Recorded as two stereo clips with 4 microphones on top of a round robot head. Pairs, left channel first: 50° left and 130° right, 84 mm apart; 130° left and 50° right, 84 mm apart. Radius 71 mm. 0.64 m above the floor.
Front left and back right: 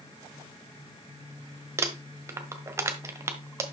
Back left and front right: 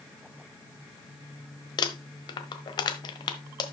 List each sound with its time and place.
1.8 s crumpling: 170° left, 1.4 m